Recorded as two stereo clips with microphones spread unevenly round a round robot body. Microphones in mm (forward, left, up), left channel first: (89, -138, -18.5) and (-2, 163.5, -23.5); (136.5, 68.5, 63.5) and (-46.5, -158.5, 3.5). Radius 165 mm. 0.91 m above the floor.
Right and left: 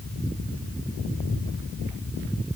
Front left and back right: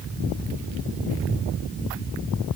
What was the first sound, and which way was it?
Only background noise.